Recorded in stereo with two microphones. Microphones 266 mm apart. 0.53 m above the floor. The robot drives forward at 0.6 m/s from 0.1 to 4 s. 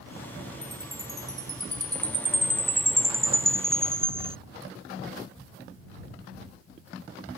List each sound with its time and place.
0.6 s a chime: 10° right (ahead or behind); by 4.4 s 20° right (ahead or behind)